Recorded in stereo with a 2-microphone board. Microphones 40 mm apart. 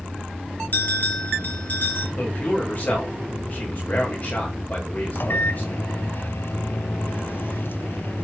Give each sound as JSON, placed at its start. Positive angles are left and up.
{"t": 0.7, "sound": "a bell", "side_deg": 45, "distance_m": 4.5}
{"t": 2.2, "sound": "a man speaking", "side_deg": 35, "distance_m": 7.5}
{"t": 5.2, "sound": "a microwave", "side_deg": 60, "distance_m": 0.9}